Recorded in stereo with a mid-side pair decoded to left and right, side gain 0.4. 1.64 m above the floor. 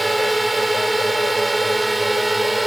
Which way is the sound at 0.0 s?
20° right.